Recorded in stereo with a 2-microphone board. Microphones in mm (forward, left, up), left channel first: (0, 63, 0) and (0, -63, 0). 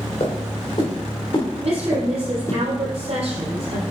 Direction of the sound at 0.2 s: 50° left (ahead or behind).